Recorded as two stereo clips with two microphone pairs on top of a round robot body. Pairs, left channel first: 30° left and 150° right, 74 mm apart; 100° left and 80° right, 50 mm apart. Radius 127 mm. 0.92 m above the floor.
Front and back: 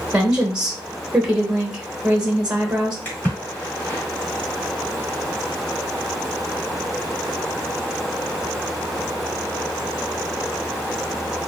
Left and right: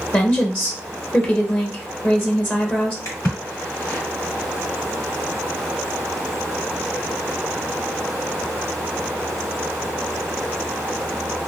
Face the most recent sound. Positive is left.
turn(degrees=100)